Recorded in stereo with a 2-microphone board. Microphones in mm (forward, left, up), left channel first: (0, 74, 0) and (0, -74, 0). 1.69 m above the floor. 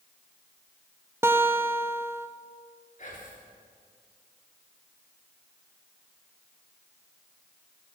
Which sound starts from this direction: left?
Whispering, at 3.0 s.